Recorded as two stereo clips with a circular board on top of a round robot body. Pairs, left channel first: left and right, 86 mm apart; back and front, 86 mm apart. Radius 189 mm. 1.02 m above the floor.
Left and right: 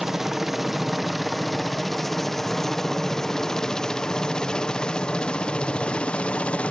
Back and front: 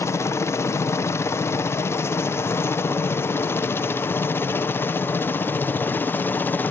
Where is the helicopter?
175° right; by 6.7 s 150° left.